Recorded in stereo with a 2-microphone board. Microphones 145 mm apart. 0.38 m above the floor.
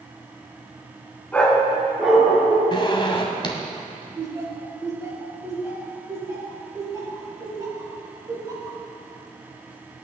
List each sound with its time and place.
1.3 s a dog barking: 10° left (ahead or behind), 1.7 m; by 2.6 s 10° right (ahead or behind), 3.5 m
2.7 s a zipper: 35° left (ahead or behind), 1.5 m
4.2 s laughter: 25° right (ahead or behind), 4.5 m